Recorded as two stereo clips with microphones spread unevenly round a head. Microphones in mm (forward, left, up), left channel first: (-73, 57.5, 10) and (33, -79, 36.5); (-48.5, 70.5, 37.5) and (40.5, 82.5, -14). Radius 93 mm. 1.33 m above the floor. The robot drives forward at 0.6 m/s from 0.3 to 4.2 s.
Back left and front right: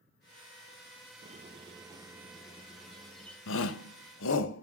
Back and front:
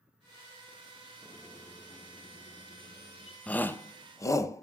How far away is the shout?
About 1.0 m.